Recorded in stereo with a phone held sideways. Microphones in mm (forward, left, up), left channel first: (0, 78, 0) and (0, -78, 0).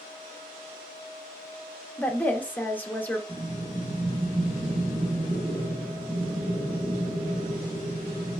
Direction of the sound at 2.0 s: 10° left (ahead or behind).